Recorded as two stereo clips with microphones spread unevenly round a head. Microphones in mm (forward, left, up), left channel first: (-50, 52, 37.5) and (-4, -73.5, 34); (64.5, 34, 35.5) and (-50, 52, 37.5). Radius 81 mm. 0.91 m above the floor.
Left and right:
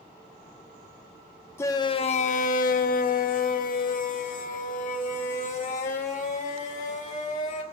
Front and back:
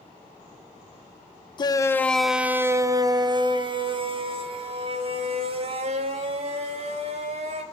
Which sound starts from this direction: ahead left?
A shout, at 1.6 s.